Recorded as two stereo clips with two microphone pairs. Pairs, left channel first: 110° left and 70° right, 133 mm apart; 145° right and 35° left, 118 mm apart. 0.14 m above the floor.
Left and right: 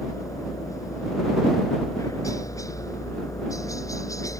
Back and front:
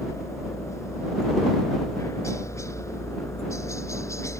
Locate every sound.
0.0 s a helicopter: 165° left